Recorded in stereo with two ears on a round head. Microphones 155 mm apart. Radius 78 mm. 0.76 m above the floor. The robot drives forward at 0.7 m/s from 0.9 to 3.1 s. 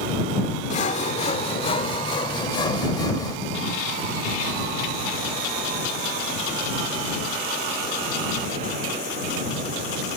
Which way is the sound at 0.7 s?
45° left (ahead or behind).